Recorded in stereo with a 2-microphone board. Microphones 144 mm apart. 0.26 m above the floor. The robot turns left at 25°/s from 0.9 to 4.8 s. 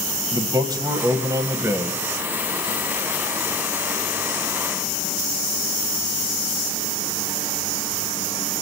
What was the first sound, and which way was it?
A man speaking, 30° right (ahead or behind).